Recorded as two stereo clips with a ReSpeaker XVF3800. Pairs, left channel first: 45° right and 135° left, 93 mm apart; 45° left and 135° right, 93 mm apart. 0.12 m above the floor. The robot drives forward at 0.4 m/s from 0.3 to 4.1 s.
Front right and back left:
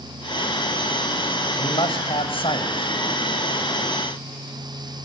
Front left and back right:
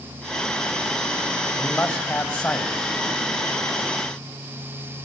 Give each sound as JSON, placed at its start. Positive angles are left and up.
{"t": 1.6, "sound": "a man speaking", "azimuth_deg": -30, "distance_m": 6.5}